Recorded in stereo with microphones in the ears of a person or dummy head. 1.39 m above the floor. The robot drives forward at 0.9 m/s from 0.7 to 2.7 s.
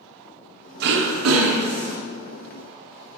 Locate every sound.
0.8 s throat clearing: 65° right (ahead or behind), 0.6 m; by 2.0 s 35° right (ahead or behind), 1.0 m